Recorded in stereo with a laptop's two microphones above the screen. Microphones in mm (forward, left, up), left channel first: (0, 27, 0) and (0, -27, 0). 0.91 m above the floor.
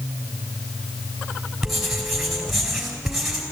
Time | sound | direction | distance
1.6 | writing | centre (ahead or behind) | 4 m